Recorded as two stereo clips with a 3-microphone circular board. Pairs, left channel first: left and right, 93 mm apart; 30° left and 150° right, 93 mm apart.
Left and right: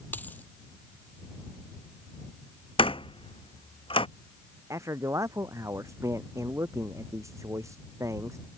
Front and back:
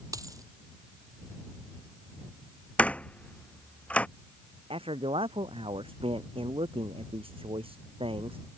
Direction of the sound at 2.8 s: 105° left.